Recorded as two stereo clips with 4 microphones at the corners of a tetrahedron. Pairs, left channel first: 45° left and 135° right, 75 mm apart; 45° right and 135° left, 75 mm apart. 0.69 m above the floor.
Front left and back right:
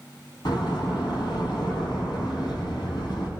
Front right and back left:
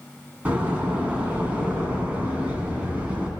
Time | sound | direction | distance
0.5 | a door slam | 65° left | 4.5 m